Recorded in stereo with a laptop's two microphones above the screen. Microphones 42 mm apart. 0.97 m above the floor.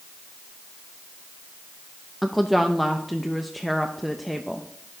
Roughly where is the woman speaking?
Centre.